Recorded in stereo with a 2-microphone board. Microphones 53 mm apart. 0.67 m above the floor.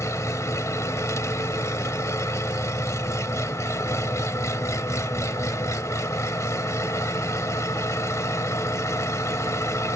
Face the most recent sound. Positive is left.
turn(degrees=70)  # may be behind; listen again after turning